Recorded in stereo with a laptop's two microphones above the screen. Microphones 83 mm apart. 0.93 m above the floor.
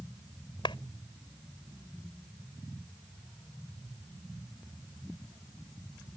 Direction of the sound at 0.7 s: 80° left.